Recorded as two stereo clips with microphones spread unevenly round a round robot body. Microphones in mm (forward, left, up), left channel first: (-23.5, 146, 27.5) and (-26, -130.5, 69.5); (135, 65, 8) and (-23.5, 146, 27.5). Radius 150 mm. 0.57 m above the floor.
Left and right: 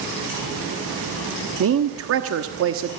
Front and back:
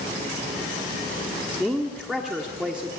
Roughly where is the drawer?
No drawer in this recording.